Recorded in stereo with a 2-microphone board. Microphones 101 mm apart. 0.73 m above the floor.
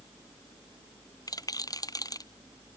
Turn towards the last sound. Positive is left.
turn(degrees=40)  # may be behind; listen again after turning